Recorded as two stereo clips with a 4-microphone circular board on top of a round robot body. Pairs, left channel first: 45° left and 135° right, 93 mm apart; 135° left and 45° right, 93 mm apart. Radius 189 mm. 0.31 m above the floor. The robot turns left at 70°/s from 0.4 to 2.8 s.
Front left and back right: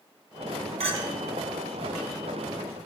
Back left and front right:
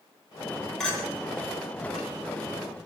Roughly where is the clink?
Behind right.